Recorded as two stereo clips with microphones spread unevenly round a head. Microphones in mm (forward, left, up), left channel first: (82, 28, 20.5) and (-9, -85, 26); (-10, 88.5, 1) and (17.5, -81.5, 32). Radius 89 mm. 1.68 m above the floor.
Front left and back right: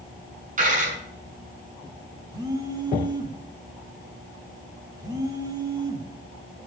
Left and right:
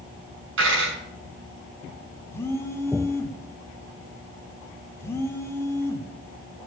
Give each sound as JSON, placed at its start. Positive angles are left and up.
{"t": 0.6, "sound": "a dropped coin", "azimuth_deg": -100, "distance_m": 7.0}
{"t": 2.3, "sound": "a phone buzzing", "azimuth_deg": 180, "distance_m": 1.5}